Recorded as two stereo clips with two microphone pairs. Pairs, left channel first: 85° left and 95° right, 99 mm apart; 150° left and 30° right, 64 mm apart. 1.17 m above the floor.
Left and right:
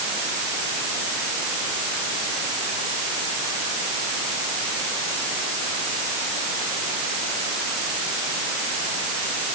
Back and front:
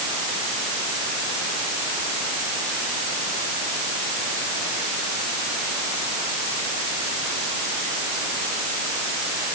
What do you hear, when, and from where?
Only background noise.